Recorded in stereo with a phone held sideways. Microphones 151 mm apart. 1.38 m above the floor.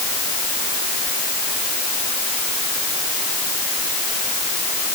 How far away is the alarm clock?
I don't hear an alarm clock.